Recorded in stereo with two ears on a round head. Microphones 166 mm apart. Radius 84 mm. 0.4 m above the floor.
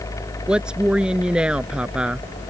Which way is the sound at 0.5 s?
5° right (ahead or behind).